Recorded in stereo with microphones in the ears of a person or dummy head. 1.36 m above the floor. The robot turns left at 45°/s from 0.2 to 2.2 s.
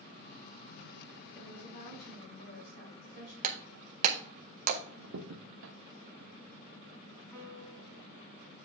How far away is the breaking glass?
About 0.8 m.